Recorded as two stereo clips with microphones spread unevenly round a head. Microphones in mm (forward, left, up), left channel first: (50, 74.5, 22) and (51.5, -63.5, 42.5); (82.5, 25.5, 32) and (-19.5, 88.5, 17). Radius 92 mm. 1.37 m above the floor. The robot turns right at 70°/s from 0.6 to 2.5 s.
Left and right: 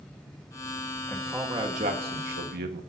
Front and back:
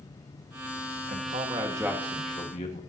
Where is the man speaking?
170° left, 1.5 m; by 2.8 s 90° right, 1.5 m.